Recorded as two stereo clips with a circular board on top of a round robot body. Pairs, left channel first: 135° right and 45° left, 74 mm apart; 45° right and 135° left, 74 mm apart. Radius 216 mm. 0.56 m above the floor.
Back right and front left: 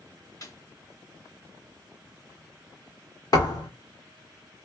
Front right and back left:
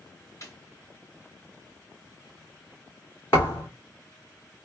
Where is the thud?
100° right, 2 m.